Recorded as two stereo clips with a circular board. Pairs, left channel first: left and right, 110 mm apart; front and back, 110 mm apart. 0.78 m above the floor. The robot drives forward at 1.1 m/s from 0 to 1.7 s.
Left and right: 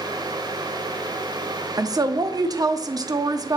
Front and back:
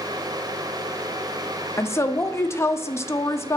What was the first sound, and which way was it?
A woman speaking, 55° right.